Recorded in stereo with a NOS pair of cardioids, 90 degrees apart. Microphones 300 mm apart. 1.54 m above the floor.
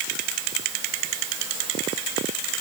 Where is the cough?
I don't hear a cough.